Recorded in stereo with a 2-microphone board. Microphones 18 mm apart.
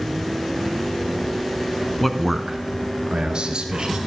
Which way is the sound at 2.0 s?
10° left (ahead or behind).